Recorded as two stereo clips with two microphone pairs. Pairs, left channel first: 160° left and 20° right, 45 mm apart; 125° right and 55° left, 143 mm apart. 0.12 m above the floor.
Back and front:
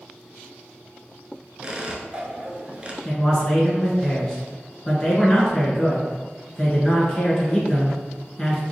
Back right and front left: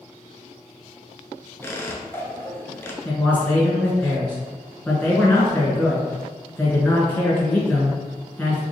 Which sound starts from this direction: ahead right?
A squeak, at 1.6 s.